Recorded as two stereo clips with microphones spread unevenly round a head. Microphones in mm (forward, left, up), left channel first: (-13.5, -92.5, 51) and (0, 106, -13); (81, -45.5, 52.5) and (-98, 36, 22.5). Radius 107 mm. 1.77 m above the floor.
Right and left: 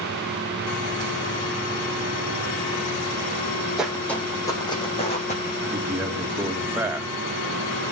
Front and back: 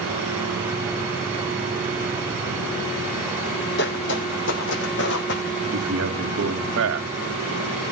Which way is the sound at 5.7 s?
170° left.